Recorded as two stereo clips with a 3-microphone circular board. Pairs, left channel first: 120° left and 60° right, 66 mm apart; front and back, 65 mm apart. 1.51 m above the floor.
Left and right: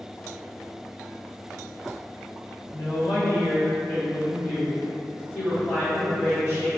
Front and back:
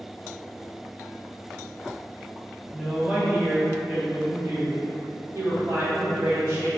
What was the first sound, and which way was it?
A woman speaking, 95° left.